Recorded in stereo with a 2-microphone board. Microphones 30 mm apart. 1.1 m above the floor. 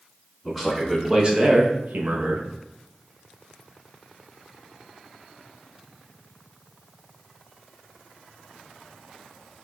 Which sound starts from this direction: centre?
A man speaking, at 0.4 s.